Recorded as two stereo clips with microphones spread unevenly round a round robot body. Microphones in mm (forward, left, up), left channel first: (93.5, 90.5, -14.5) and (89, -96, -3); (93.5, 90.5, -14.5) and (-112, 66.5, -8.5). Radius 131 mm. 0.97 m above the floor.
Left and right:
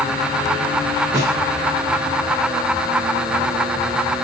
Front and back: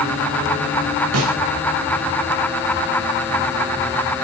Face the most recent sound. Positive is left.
turn(degrees=-170)